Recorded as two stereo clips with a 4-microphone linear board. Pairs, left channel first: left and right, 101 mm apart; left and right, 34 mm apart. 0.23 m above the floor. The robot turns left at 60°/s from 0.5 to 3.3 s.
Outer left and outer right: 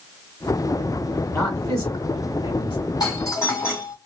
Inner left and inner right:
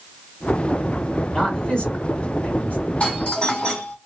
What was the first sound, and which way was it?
A man speaking, 20° left (ahead or behind).